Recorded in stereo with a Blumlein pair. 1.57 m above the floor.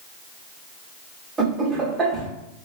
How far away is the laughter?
About 0.8 m.